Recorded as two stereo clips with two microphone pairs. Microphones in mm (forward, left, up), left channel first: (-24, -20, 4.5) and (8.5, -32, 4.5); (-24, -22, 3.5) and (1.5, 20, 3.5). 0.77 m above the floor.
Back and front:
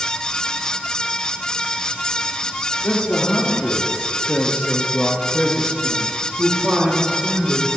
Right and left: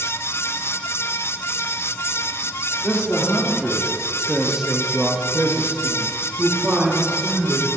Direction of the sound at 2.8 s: 160° left.